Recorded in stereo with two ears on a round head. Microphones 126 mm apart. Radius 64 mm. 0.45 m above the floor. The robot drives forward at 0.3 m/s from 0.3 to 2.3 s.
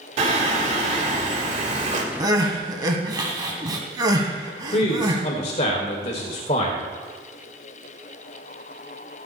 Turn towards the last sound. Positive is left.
turn(degrees=45)  # may be behind; listen again after turning